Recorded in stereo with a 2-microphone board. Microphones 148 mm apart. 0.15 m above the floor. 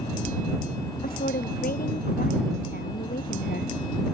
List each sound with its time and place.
1.0 s a woman speaking: 75° left (ahead or behind)